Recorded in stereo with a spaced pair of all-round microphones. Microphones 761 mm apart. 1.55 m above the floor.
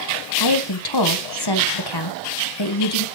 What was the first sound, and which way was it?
A woman speaking, 30° left (ahead or behind).